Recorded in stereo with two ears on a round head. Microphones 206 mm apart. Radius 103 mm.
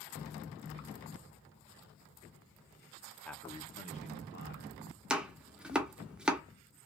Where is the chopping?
5° right (ahead or behind), 0.8 m.